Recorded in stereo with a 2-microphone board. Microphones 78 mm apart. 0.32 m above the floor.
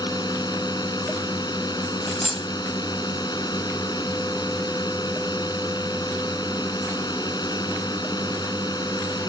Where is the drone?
60° left (ahead or behind).